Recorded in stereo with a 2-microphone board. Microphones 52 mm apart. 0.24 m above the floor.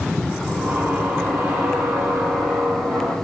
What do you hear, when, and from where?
0.5 s a squeak: 40° right (ahead or behind), 3.5 m